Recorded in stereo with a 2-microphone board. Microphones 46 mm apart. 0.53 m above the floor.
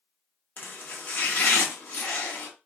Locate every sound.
0.6 s chopping: 50° left (ahead or behind), 1.0 m